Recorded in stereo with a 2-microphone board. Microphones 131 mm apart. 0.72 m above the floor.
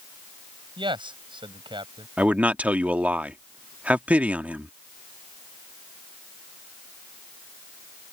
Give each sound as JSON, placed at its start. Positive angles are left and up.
{"t": 0.8, "sound": "a man speaking", "side_deg": -40}
{"t": 2.2, "sound": "a man speaking", "side_deg": -10}